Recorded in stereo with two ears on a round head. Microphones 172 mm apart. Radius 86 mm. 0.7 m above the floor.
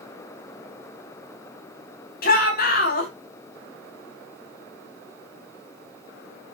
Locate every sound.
2.2 s a shout: 50° left (ahead or behind), 5.5 m